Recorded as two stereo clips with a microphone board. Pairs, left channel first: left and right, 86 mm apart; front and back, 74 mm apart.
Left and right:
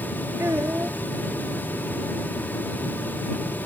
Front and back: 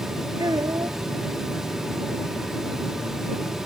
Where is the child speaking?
150° right.